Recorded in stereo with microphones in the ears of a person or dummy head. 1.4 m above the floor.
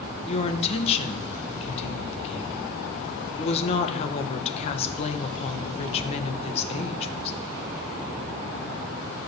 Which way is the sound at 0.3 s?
35° left (ahead or behind).